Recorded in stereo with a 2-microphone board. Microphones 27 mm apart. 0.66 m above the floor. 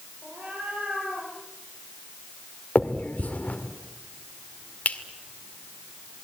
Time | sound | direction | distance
0.2 | a cat meowing | 75° right (ahead or behind) | 8 m
2.8 | a finger snap | 65° left (ahead or behind) | 2.0 m